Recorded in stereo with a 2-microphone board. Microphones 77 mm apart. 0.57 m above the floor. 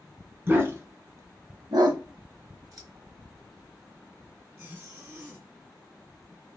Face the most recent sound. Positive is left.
turn(degrees=-30)  # may be behind; listen again after turning